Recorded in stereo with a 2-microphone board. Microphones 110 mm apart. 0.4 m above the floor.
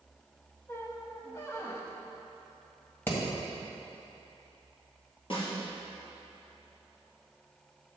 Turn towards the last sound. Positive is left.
turn(degrees=55)  # may be behind; listen again after turning